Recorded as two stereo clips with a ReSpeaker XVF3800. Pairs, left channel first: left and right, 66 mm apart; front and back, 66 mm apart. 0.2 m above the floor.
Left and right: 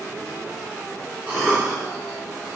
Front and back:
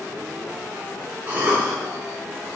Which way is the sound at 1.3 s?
150° right.